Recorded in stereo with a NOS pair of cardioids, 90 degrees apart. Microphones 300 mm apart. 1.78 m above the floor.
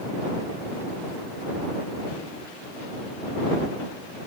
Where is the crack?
No crack in this recording.